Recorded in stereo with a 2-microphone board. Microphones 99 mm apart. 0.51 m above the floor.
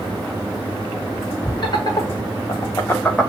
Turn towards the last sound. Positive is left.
turn(degrees=0)  # may be behind; listen again after turning